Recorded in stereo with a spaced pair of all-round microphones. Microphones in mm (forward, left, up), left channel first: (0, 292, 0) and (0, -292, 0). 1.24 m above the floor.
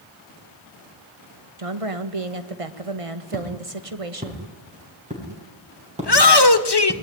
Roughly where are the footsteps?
Centre.